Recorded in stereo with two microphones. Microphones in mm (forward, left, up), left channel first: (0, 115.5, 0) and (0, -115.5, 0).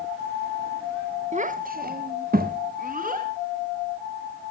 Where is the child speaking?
30° right (ahead or behind), 0.8 m; by 3.3 s 35° right (ahead or behind), 1.9 m.